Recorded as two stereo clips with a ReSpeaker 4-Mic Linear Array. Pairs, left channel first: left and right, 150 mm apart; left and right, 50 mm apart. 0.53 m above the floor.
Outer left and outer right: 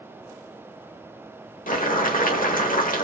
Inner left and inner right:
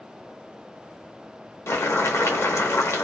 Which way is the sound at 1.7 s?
70° left (ahead or behind).